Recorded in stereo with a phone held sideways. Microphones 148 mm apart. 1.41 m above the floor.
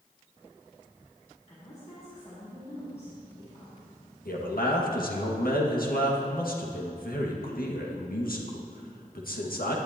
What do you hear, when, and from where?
1.5 s a woman speaking: 50° left (ahead or behind), 4 m
4.2 s a man speaking: 85° left, 1.9 m